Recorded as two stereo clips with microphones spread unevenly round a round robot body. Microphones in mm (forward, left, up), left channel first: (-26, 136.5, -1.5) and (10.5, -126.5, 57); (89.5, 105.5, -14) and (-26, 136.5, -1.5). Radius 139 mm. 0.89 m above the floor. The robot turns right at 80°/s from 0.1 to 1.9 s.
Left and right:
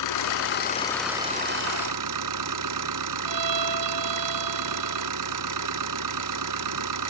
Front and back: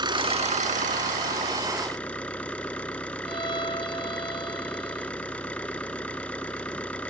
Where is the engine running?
115° left; by 7.1 s 100° right.